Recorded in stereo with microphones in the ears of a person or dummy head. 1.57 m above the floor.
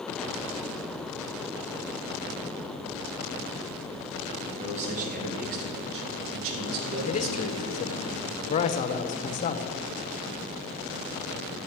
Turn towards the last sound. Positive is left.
turn(degrees=35)  # may be behind; listen again after turning